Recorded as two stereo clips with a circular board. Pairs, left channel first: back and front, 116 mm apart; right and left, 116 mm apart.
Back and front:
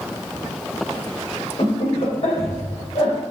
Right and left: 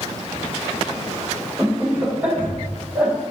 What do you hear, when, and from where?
1.6 s laughter: 165° left, 2.5 m; by 3.1 s 170° left, 1.8 m